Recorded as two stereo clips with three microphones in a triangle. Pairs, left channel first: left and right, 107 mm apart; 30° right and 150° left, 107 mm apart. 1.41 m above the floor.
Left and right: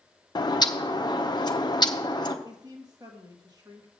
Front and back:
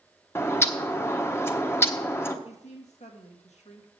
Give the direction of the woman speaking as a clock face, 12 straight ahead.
1 o'clock.